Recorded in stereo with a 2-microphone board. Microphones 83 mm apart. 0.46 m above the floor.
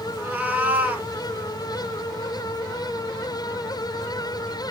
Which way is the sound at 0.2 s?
20° right (ahead or behind).